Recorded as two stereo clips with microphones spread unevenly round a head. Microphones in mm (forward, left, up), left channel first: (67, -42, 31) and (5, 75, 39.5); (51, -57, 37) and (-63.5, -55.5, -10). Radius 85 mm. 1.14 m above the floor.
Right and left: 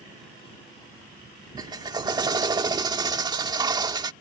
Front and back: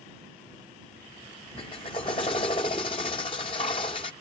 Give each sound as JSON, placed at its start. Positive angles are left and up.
{"t": 1.6, "sound": "a drill", "azimuth_deg": 60}